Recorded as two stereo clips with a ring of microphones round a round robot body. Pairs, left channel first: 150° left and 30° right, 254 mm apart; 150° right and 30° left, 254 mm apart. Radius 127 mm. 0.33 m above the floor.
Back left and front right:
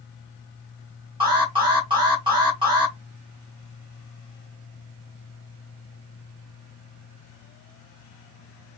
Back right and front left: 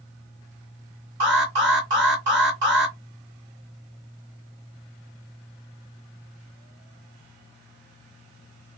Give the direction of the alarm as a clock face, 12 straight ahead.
11 o'clock.